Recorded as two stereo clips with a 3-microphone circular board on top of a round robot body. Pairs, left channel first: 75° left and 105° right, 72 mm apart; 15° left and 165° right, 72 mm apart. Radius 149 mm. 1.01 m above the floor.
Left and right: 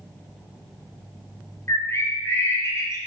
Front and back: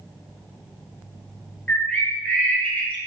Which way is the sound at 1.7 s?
75° left.